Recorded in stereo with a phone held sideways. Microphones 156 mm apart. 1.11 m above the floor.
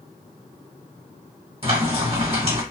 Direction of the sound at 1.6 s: 40° right (ahead or behind).